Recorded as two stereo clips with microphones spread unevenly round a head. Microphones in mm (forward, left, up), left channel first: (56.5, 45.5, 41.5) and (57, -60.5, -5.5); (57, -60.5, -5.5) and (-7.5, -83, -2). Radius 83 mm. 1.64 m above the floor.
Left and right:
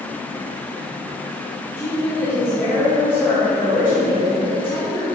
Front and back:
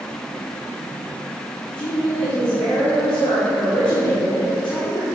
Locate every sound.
1.8 s a woman speaking: 30° left, 2 m